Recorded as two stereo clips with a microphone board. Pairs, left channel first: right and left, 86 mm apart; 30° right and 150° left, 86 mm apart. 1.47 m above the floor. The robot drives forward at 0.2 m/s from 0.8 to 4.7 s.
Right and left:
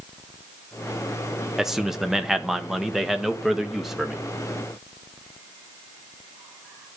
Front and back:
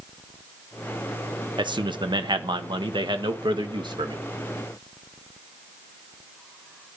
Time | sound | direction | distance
1.6 | a man speaking | 175° left | 1.2 m